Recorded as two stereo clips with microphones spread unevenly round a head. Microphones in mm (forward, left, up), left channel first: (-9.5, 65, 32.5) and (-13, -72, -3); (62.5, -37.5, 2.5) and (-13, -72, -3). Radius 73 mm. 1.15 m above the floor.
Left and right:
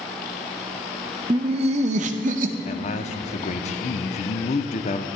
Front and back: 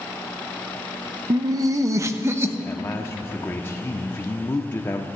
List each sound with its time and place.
1.3 s laughter: 135° right, 0.6 m; by 2.5 s 100° right, 1.3 m
2.6 s a man speaking: 75° left, 0.7 m